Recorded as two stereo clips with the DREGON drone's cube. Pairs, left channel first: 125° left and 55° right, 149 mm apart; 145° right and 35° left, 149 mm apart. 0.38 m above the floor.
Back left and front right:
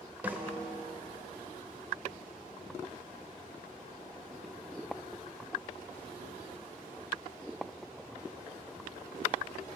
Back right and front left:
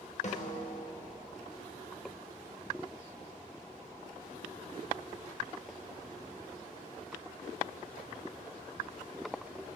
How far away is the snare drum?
About 1.0 m.